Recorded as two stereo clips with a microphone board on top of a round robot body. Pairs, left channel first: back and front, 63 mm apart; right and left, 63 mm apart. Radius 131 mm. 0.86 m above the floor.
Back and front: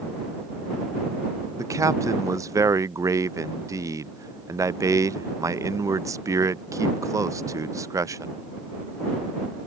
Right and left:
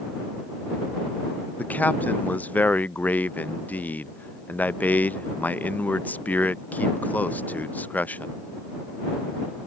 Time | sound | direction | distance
1.6 | a man speaking | 25° right | ?